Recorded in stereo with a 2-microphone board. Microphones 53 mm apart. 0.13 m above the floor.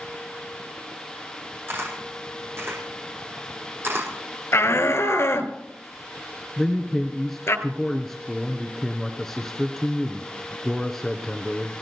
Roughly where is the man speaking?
Centre.